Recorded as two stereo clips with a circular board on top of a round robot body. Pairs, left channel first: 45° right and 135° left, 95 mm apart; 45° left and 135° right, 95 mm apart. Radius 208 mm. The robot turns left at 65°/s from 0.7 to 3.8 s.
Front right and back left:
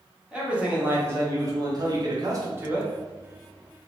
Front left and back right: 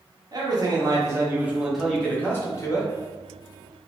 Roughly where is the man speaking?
Behind right.